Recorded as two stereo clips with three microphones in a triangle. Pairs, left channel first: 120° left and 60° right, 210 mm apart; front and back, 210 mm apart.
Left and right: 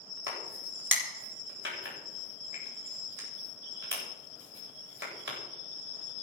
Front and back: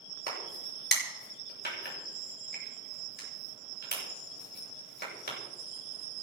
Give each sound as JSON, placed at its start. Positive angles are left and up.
{"t": 0.3, "sound": "a crack", "azimuth_deg": -35, "distance_m": 7.5}